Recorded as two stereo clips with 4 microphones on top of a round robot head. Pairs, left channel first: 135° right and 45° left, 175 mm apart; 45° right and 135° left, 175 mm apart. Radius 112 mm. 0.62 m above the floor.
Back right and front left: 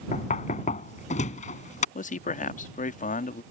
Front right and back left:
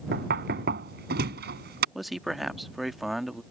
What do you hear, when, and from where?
0.1 s knocking: 170° left
1.9 s a man speaking: 135° right